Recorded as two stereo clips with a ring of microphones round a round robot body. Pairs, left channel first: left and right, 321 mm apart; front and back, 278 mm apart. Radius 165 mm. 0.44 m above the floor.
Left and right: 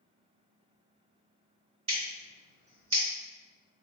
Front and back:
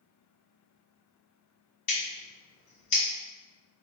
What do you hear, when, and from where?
1.9 s scissors: 20° right, 2.0 m